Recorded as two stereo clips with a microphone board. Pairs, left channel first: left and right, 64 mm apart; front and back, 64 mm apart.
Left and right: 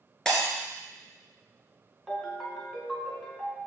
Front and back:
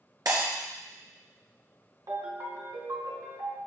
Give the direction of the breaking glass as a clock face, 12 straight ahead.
6 o'clock.